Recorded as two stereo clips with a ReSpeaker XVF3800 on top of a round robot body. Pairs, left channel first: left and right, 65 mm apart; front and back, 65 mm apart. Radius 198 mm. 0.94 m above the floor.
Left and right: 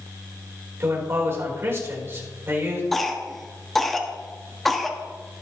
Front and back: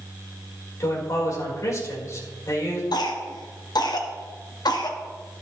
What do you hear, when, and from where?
0.8 s a man speaking: 40° right, 4.5 m
2.9 s a cough: 5° left, 1.7 m